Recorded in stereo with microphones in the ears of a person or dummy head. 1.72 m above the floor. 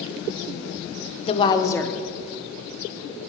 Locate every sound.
1.2 s a woman speaking: 35° left (ahead or behind), 0.9 m; by 3.3 s 55° right (ahead or behind), 0.8 m